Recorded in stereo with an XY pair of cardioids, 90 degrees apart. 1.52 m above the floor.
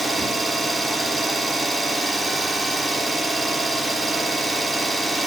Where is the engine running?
20° right, 2.5 m.